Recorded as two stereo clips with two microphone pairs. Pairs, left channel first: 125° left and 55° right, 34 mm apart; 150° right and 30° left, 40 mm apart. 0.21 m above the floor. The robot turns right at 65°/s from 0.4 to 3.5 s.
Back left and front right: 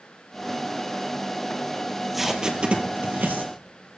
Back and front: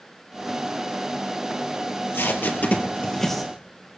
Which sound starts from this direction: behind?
Tape being pulled, at 1.9 s.